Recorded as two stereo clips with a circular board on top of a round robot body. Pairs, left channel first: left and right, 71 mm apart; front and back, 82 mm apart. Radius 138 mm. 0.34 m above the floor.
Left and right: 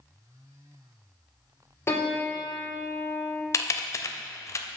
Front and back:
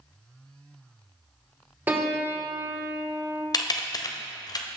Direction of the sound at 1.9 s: 125° left.